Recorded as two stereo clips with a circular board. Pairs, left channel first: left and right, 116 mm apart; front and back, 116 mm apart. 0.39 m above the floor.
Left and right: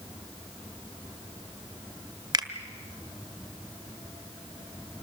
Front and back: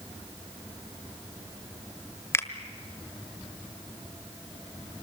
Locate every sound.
2.3 s a finger snap: 55° right, 1.4 m